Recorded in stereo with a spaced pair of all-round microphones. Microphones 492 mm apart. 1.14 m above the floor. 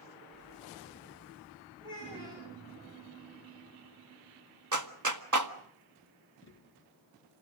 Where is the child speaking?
90° left, 6.5 m.